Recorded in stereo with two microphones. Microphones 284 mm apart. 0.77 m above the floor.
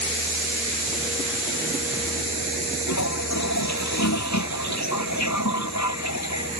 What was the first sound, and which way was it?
A toilet flushing, 75° left (ahead or behind).